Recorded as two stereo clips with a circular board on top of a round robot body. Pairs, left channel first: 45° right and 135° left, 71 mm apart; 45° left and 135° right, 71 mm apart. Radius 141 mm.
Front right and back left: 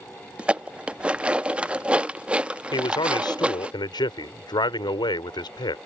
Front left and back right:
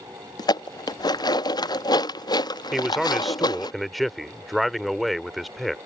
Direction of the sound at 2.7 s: 45° right.